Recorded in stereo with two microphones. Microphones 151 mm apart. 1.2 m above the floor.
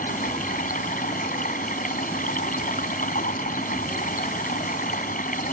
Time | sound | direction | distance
0.0 | running water | 65° left (ahead or behind) | ?